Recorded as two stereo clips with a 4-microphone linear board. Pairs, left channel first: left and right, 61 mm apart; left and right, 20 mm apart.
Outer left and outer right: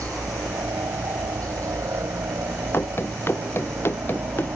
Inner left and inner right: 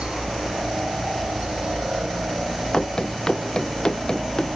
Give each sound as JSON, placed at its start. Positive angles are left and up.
{"t": 0.0, "sound": "a helicopter", "side_deg": -60}
{"t": 2.7, "sound": "running footsteps", "side_deg": 40}